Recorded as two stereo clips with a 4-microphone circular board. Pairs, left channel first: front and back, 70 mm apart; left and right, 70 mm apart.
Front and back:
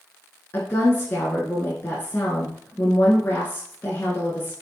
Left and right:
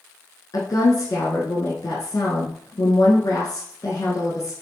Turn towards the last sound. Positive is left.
turn(degrees=55)